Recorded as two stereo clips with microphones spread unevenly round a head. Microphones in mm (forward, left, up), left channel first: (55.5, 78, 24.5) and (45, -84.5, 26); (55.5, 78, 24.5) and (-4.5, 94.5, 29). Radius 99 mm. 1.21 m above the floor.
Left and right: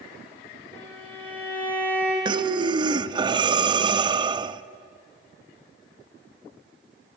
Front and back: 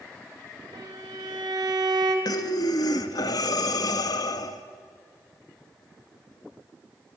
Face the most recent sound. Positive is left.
turn(degrees=-35)